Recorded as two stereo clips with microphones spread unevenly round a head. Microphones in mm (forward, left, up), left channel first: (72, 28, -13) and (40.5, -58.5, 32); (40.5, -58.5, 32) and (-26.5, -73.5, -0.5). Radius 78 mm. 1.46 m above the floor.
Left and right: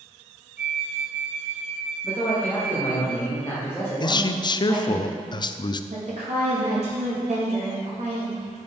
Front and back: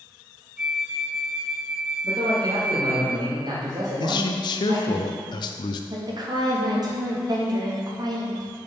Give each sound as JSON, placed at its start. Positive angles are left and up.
{"t": 0.6, "sound": "a flute", "azimuth_deg": -65, "distance_m": 0.9}
{"t": 2.0, "sound": "a man speaking", "azimuth_deg": 145, "distance_m": 1.8}
{"t": 4.0, "sound": "a man speaking", "azimuth_deg": 20, "distance_m": 0.5}
{"t": 5.9, "sound": "a woman speaking", "azimuth_deg": -145, "distance_m": 2.0}